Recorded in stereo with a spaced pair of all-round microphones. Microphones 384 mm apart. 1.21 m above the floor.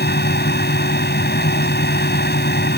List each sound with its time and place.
0.0 s a fan: 25° left (ahead or behind)